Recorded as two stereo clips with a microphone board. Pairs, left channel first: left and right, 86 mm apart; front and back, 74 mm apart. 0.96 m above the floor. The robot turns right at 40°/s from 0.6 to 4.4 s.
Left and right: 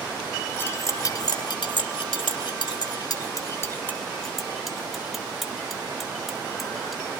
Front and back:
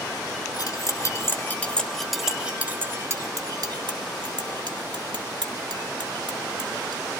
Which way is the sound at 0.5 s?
30° left.